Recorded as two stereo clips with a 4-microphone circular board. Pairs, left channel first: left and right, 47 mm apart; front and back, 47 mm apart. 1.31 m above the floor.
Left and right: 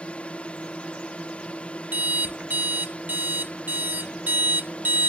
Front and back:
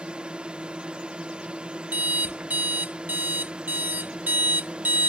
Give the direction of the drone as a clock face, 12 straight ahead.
8 o'clock.